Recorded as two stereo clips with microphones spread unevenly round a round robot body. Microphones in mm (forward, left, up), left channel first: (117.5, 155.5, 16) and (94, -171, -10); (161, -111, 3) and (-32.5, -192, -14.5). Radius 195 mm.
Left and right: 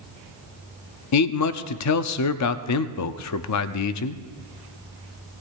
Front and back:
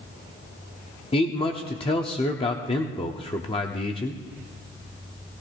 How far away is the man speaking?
About 0.8 m.